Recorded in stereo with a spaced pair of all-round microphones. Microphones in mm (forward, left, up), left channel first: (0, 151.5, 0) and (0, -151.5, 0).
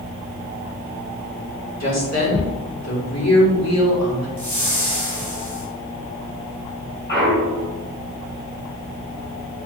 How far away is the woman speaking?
About 2.5 m.